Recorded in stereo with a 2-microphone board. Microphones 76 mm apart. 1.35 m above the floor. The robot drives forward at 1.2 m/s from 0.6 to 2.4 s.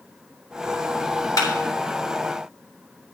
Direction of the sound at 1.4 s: 50° left (ahead or behind).